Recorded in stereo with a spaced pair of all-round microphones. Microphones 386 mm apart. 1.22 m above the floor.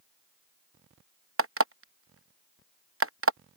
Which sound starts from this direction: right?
An alarm clock, at 1.4 s.